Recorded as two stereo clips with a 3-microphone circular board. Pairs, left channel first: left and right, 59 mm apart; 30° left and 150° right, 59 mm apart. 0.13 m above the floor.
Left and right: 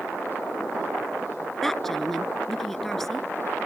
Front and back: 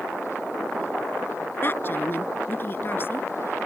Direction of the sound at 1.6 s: 5° left.